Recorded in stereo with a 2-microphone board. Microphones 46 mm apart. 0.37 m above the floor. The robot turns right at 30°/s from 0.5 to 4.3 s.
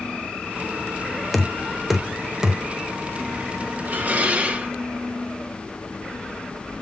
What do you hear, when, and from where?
1.3 s knocking: centre (ahead or behind), 0.8 m; by 2.6 s 20° right (ahead or behind), 0.8 m
3.9 s dishes clattering: 40° right (ahead or behind), 1.1 m; by 4.7 s 30° right (ahead or behind), 1.1 m